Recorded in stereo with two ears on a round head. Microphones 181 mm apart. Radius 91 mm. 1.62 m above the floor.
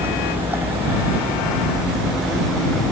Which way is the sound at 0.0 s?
15° right (ahead or behind).